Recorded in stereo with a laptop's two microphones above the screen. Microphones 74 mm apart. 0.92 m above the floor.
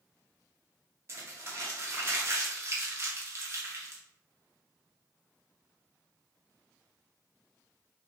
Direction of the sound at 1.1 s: 40° right (ahead or behind).